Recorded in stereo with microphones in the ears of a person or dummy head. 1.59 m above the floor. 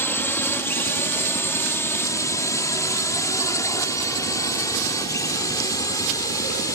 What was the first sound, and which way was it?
A drone, 10° left (ahead or behind).